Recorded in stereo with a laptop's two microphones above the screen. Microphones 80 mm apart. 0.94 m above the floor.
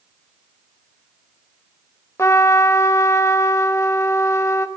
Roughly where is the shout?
No shout in this recording.